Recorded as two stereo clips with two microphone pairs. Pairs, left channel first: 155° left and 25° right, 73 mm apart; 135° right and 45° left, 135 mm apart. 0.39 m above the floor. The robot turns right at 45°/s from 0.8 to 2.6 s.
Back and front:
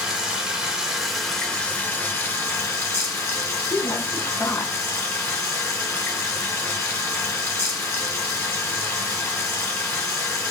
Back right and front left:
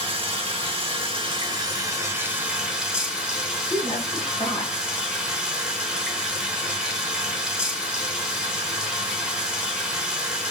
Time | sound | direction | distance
0.0 | running water | 50° left | 1.0 m
3.7 | a woman speaking | 170° left | 1.7 m